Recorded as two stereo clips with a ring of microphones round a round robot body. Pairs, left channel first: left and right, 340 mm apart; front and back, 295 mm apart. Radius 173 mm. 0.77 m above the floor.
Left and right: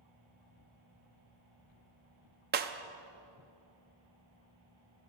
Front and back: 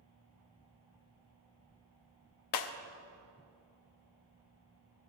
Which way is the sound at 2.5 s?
25° right.